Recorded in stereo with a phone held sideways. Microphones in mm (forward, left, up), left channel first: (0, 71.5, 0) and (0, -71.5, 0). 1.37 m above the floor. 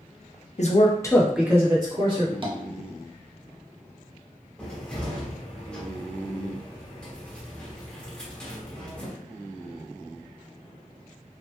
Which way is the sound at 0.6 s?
55° left (ahead or behind).